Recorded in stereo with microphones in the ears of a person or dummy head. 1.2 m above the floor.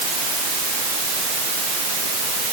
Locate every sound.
Only background noise.